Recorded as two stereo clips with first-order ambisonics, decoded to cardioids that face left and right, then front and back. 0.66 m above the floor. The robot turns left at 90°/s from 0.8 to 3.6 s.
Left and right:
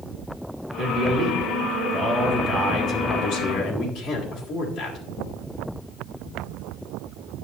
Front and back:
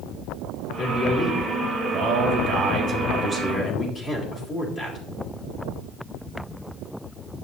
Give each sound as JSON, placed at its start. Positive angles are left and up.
{"t": 0.8, "sound": "a man speaking", "azimuth_deg": -55, "distance_m": 1.7}